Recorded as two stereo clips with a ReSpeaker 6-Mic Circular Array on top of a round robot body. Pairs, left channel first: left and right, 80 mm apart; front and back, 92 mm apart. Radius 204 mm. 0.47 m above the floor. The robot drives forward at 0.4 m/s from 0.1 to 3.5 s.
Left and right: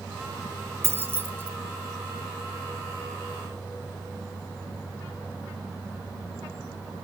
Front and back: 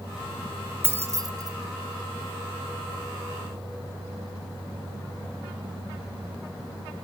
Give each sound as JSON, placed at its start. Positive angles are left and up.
{"t": 0.8, "sound": "keys jangling", "azimuth_deg": -125, "distance_m": 0.8}